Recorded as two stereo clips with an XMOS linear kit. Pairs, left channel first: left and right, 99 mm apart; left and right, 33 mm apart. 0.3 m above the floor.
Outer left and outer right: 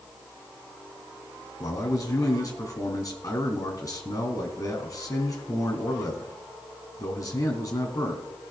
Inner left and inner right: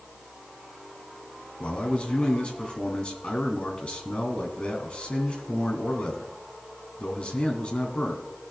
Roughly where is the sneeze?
I don't hear a sneeze.